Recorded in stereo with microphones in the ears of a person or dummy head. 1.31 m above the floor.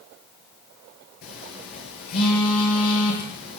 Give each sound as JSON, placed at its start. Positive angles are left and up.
{"t": 1.2, "sound": "a phone buzzing", "side_deg": 55, "distance_m": 6.0}